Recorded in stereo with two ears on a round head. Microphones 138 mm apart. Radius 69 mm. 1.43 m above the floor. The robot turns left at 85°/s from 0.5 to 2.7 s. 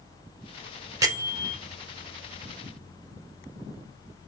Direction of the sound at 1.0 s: 25° right.